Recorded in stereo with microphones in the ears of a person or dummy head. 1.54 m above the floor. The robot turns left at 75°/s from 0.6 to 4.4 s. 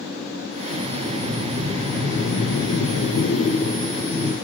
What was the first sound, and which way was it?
Breathing, 105° right.